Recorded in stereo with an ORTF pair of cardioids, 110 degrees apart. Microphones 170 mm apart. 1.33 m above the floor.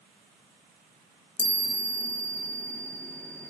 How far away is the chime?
About 0.7 m.